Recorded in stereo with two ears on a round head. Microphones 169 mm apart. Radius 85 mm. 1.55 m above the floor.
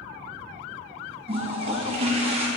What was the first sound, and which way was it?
A toilet flushing, 30° right (ahead or behind).